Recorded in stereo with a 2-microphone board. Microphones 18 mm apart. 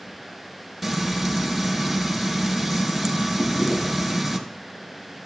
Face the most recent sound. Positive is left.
turn(degrees=40)  # may be behind; listen again after turning